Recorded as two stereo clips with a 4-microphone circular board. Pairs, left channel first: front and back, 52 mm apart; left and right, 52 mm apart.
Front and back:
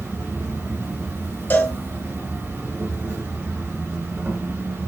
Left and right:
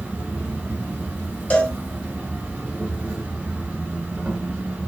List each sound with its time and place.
0.0 s an insect: 145° right, 1.2 m
1.5 s a cowbell: 40° left, 0.8 m